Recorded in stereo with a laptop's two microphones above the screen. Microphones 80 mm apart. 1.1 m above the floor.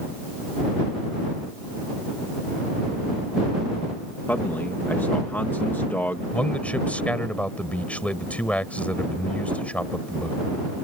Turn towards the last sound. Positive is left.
turn(degrees=20)  # may be behind; listen again after turning